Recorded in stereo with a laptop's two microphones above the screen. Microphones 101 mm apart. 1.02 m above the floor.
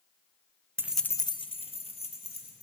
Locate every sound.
0.8 s keys jangling: 25° right (ahead or behind), 0.5 m; by 2.6 s 85° left, 2.5 m